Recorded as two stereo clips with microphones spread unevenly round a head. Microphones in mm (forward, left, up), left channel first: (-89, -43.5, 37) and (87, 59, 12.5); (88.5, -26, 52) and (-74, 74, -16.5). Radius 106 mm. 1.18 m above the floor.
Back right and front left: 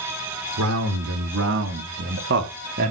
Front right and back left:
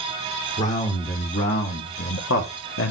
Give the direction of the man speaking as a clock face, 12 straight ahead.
11 o'clock.